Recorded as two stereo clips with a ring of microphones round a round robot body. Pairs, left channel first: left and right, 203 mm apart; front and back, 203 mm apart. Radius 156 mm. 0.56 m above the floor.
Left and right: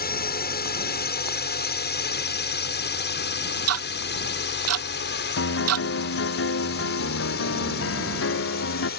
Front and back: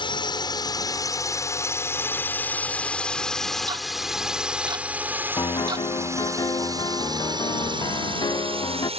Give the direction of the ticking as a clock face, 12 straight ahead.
3 o'clock.